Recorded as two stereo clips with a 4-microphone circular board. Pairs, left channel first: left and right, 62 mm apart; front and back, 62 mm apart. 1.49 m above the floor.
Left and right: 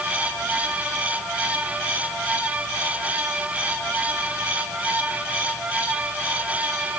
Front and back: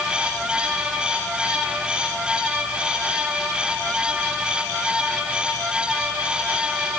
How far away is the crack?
No crack in this recording.